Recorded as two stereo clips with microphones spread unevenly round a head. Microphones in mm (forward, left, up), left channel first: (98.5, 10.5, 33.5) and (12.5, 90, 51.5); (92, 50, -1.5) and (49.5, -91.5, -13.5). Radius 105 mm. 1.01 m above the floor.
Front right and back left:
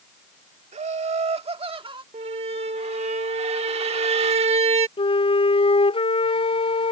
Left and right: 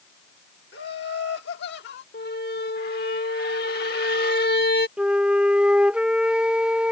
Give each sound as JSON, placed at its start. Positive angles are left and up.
{"t": 0.7, "sound": "laughter", "azimuth_deg": 115}
{"t": 2.1, "sound": "a squeak", "azimuth_deg": 105}
{"t": 5.0, "sound": "a flute", "azimuth_deg": -25}